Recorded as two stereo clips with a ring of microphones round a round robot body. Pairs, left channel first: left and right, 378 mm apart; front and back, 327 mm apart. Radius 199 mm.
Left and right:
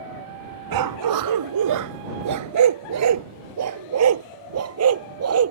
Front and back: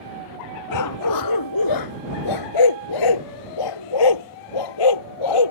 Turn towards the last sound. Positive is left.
turn(degrees=-35)